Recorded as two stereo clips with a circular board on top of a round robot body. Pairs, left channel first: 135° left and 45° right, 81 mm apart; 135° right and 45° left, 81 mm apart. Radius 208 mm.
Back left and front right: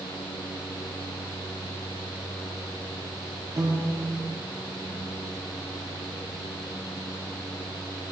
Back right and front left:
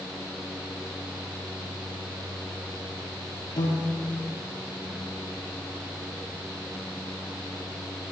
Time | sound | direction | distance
3.6 | a piano | 95° right | 6 m